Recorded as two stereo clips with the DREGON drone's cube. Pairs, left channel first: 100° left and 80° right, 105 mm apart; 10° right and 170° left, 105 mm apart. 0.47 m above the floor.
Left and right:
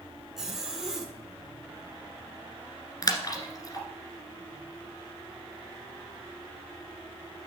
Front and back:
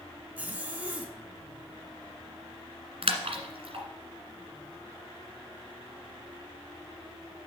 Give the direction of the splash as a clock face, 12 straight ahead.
7 o'clock.